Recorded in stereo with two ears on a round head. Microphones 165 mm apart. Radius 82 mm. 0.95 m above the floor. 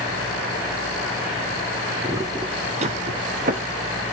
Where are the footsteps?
15° right (ahead or behind), 1.3 m; by 4.0 s 40° right (ahead or behind), 1.8 m.